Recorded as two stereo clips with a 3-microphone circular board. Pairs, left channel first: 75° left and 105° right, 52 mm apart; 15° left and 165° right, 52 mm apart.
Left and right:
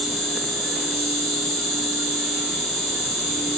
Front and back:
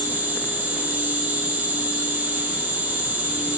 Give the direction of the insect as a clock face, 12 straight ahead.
7 o'clock.